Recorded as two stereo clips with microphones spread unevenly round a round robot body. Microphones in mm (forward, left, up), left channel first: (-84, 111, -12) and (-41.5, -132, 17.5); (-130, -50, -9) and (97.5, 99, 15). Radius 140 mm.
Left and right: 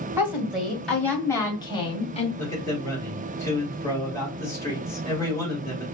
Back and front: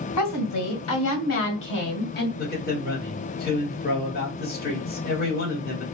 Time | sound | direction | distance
0.2 | a woman speaking | 165° right | 2 m
2.4 | a man speaking | 170° left | 2.5 m